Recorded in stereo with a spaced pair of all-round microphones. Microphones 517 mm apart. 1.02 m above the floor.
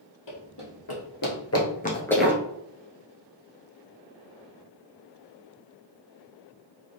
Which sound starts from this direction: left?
Running footsteps, at 0.3 s.